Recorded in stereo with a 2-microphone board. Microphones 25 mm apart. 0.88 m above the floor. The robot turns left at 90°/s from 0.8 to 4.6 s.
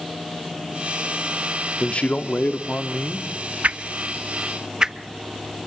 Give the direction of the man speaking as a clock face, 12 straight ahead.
7 o'clock.